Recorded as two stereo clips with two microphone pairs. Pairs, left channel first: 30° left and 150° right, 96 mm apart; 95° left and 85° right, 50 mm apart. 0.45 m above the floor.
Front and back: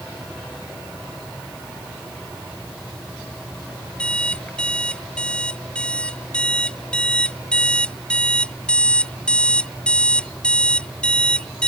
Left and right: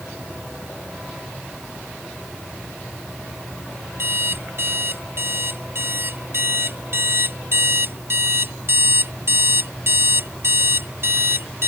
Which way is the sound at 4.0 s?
50° right.